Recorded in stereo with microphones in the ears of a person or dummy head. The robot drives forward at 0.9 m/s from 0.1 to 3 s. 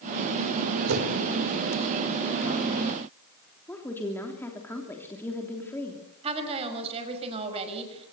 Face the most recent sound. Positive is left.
turn(degrees=-30)  # may be behind; listen again after turning